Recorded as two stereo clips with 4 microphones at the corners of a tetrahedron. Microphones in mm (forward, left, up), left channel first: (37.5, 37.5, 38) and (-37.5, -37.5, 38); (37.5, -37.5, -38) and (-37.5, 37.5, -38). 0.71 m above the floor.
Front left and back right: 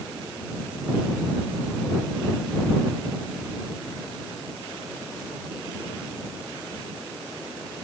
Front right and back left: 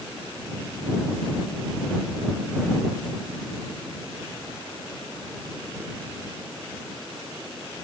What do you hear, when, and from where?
Only background noise.